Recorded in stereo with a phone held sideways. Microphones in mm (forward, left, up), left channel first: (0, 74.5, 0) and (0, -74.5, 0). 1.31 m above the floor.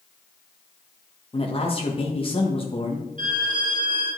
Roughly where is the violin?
Right.